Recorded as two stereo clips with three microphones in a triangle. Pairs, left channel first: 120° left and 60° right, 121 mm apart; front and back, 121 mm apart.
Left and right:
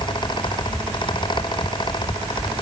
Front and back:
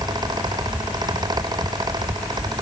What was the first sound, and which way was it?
Only background noise.